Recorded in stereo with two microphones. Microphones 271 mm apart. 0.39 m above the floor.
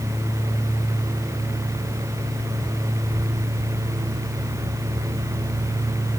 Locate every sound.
Only background noise.